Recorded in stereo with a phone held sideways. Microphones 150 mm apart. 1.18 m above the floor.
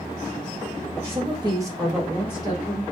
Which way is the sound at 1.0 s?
45° right (ahead or behind).